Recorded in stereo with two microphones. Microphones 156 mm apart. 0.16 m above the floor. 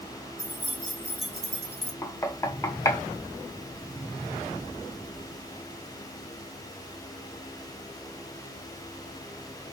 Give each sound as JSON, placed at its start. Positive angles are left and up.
{"t": 0.4, "sound": "keys jangling", "side_deg": -60, "distance_m": 2.0}
{"t": 2.0, "sound": "knocking", "side_deg": 20, "distance_m": 0.9}